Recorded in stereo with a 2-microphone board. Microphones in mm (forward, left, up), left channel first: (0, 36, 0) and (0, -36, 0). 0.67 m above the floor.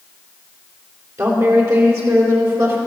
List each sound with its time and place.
1.2 s a woman speaking: 45° right (ahead or behind), 2.5 m; by 2.8 s 50° right (ahead or behind), 3.5 m